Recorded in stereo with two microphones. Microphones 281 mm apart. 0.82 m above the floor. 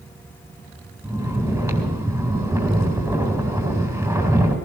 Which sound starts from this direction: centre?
Snoring, at 1.0 s.